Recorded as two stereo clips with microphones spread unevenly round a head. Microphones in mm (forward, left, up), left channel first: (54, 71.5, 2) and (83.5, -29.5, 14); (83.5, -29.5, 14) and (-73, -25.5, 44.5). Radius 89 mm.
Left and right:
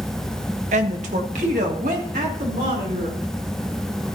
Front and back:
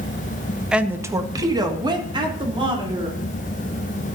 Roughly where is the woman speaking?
Right.